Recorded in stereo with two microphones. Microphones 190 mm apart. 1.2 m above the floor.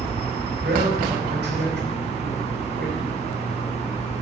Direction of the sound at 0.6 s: 75° right (ahead or behind).